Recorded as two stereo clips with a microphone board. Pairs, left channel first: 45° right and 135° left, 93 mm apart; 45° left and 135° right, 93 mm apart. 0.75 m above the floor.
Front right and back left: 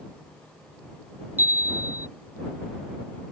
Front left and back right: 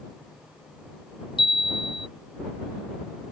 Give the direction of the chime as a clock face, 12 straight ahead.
10 o'clock.